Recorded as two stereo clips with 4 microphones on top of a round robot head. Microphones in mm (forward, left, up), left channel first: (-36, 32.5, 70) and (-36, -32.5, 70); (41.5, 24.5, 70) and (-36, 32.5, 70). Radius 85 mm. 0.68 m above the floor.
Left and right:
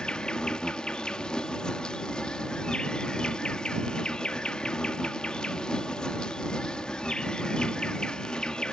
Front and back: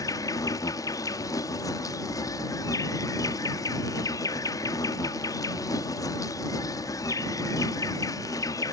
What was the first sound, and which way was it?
An insect, 10° left.